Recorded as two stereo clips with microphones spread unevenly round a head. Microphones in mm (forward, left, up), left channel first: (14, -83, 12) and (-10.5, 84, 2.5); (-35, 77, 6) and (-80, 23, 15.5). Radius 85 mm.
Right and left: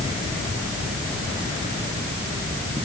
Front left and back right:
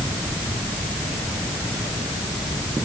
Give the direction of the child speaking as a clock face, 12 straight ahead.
No child speaking in this recording.